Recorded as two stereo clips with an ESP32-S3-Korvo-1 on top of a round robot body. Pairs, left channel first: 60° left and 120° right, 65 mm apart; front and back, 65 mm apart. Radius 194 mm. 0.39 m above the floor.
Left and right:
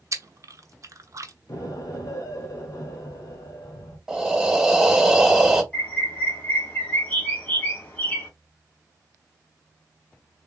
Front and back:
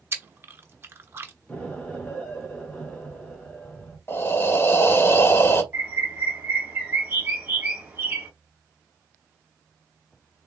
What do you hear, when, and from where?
0.1 s chewing: 135° right, 0.8 m
1.5 s an explosion: 75° left, 1.6 m
4.1 s breathing: 40° right, 0.9 m
5.7 s a bird: 120° left, 2.0 m